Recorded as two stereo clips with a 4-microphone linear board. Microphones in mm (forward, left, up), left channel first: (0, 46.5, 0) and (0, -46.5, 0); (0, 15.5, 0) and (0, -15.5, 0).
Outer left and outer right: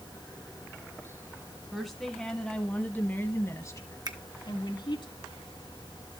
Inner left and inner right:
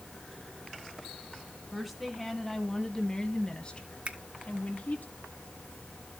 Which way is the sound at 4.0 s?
45° right (ahead or behind).